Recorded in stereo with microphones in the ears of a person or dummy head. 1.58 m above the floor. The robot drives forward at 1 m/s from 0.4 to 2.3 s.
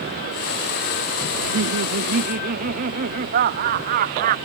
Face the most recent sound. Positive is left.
turn(degrees=-45)  # may be behind; listen again after turning